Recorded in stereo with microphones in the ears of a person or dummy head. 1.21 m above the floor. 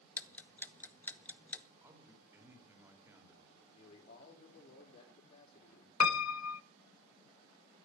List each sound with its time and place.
0.2 s ticking: 10° left (ahead or behind), 0.9 m
1.8 s a man speaking: 15° right (ahead or behind), 3.5 m
3.7 s a man speaking: 40° left (ahead or behind), 3.5 m
6.0 s a piano: 75° left (ahead or behind), 0.5 m